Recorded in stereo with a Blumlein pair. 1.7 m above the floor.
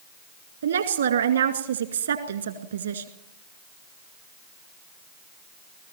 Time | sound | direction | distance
0.6 | a woman speaking | 70° right | 2.5 m